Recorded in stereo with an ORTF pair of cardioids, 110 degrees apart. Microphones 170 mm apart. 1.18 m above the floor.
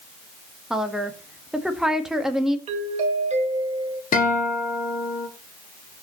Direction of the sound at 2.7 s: 40° right.